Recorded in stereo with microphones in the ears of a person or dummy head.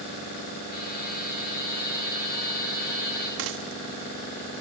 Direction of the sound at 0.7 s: 45° left (ahead or behind).